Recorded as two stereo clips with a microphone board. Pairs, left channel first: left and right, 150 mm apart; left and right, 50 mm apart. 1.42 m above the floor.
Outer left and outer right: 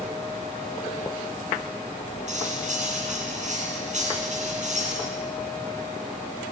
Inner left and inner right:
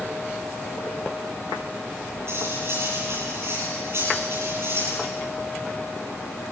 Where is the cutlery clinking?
50° right (ahead or behind), 9.5 m.